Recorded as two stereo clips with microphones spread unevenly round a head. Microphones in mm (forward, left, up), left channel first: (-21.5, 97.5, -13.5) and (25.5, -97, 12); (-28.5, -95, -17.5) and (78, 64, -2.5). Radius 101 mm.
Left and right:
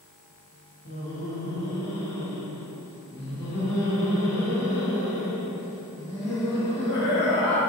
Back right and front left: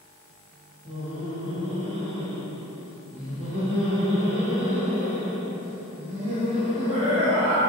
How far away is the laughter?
About 1.1 m.